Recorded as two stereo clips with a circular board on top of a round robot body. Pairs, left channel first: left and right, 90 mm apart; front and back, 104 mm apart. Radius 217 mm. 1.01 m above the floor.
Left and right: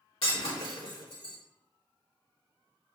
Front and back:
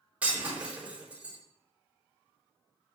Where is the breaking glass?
105° left, 4 m.